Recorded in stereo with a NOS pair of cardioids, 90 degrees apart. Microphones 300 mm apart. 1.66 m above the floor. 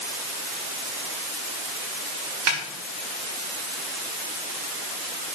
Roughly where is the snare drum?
Ahead right.